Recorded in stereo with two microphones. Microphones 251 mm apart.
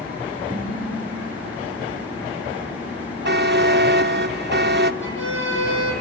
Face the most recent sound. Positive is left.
turn(degrees=55)  # may be behind; listen again after turning